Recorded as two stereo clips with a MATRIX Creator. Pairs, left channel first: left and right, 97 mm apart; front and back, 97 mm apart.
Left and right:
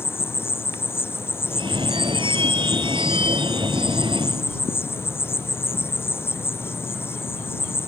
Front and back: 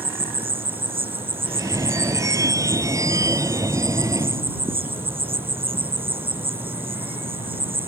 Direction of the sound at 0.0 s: 155° left.